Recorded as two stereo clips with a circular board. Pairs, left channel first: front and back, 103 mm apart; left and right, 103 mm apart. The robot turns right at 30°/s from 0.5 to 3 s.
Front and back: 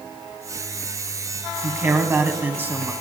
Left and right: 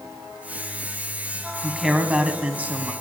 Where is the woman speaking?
170° right, 1.0 m; by 2.9 s 135° right, 1.0 m.